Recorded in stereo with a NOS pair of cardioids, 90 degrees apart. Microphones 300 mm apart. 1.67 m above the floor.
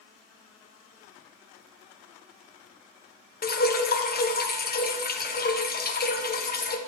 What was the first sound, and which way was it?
Dripping, 30° left.